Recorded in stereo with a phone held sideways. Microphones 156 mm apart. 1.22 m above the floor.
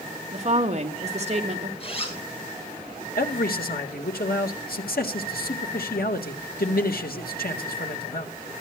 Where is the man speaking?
75° left (ahead or behind), 1.9 m.